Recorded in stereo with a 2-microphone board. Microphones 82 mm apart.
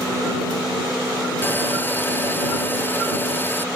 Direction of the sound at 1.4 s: 25° left (ahead or behind).